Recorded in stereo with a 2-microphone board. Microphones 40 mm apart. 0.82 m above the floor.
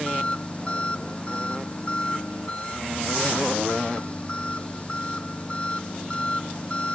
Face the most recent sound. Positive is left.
turn(degrees=30)  # may be behind; listen again after turning